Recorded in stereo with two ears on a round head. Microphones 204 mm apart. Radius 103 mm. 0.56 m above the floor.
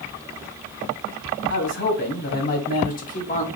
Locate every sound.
1.5 s a man speaking: 55° left (ahead or behind), 2 m; by 3.5 s 30° left (ahead or behind), 1.4 m